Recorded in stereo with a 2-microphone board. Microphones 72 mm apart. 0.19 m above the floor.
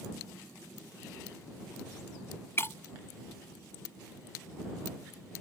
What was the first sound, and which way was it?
Breaking glass, 35° left (ahead or behind).